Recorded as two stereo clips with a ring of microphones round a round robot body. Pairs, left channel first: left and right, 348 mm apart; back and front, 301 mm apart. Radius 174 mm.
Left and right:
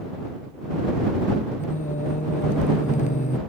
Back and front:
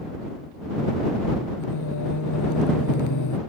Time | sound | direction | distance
1.6 | singing | 160° left | ?